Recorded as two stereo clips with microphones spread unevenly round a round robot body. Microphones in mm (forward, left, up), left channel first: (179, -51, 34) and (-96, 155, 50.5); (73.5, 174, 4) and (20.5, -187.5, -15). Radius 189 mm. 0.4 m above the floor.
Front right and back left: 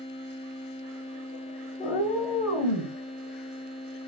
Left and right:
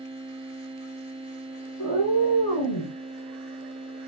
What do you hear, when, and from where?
1.8 s a cat meowing: 35° left, 1.9 m; by 2.9 s 55° left, 1.8 m